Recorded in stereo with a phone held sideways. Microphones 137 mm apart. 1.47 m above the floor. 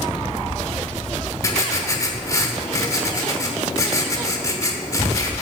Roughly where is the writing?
Left.